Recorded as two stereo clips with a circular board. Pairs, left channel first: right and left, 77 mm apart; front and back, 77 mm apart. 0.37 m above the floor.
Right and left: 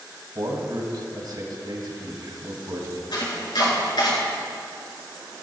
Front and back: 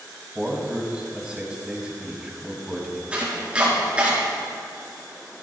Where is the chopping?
105° right, 4 m.